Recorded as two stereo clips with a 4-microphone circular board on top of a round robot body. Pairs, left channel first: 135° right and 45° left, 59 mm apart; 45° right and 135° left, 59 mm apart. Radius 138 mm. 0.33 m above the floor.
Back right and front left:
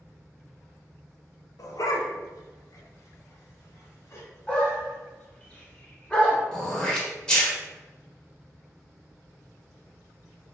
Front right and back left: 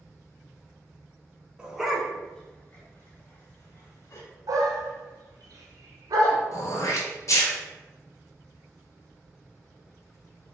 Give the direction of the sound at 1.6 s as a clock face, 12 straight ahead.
5 o'clock.